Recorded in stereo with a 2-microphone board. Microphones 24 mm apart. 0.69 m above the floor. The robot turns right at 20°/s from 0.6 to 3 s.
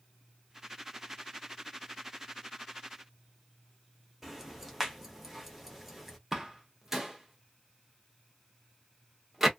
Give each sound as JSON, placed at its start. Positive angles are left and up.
{"t": 4.2, "sound": "ticking", "side_deg": -10, "distance_m": 0.9}
{"t": 6.3, "sound": "a door slam", "side_deg": -20, "distance_m": 0.7}